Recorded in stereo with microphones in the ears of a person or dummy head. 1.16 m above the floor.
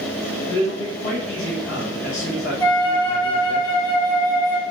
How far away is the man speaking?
About 1.0 m.